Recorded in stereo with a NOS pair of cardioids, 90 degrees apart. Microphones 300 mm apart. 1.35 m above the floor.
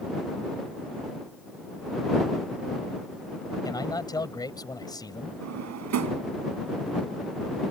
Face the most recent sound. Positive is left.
turn(degrees=-65)